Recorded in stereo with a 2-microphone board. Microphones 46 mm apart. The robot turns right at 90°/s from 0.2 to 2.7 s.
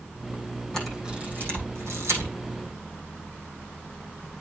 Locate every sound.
0.7 s a camera shutter: 15° left (ahead or behind), 6.5 m; by 2.3 s 55° right (ahead or behind), 6.5 m